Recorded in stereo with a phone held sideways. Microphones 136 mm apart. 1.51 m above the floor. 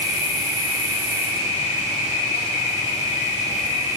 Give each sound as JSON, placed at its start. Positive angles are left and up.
{"t": 0.0, "sound": "an insect", "side_deg": 60, "distance_m": 5.0}